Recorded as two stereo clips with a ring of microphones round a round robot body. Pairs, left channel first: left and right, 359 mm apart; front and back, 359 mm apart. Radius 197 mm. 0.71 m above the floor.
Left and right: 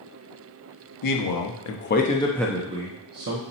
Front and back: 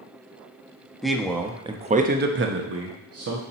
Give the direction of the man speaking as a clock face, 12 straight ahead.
9 o'clock.